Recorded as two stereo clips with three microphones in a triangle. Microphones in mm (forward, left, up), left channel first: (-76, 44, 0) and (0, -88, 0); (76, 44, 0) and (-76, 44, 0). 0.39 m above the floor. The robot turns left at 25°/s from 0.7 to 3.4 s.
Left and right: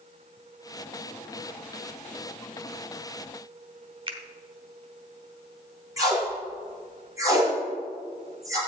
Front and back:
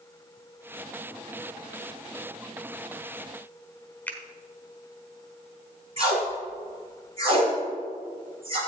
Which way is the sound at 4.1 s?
70° right.